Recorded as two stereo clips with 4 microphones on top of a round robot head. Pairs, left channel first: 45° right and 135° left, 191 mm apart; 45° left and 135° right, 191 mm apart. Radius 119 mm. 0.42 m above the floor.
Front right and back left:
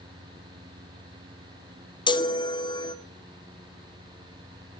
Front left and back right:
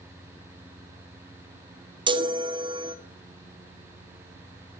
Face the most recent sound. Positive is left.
turn(degrees=-90)